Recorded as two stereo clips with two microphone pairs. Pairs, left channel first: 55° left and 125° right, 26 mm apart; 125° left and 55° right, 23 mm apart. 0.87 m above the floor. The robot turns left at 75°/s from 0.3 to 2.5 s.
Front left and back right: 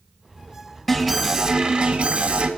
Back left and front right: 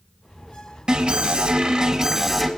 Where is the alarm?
20° right, 2.0 m; by 2.5 s 140° right, 2.0 m.